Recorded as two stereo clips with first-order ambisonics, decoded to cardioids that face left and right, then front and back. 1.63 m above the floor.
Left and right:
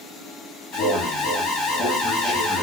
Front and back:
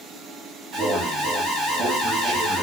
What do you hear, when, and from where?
0.7 s an alarm: 130° left, 1.3 m